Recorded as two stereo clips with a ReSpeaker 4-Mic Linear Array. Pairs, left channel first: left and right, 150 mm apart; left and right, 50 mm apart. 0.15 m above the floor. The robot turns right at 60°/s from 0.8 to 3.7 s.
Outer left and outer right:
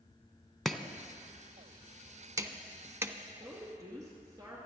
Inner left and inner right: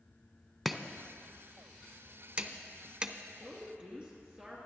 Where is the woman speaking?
5° right (ahead or behind), 2 m; by 4.7 s 20° right (ahead or behind), 2 m.